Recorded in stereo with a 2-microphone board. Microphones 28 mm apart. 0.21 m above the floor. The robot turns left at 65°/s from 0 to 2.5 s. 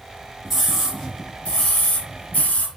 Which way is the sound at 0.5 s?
165° right.